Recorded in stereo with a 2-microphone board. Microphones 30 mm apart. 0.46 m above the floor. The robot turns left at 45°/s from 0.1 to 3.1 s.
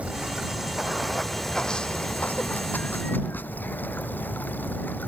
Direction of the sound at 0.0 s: 135° right.